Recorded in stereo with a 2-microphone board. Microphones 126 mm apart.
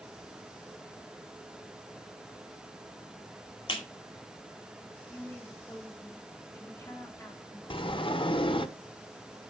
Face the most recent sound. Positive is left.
turn(degrees=45)  # may be behind; listen again after turning